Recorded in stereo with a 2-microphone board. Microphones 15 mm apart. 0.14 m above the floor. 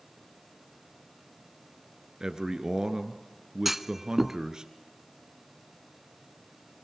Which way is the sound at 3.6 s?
20° right (ahead or behind).